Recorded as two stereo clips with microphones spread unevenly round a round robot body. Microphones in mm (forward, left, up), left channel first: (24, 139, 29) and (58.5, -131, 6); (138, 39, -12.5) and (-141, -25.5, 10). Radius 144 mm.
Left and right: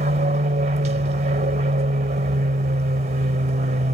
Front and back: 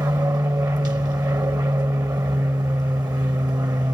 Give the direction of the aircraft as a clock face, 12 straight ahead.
3 o'clock.